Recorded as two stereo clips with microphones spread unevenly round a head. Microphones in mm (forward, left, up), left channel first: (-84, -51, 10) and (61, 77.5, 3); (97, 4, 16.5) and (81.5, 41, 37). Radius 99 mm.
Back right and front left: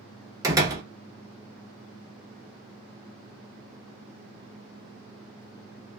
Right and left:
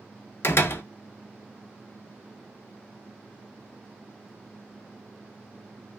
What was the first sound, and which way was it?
A door slam, 30° right.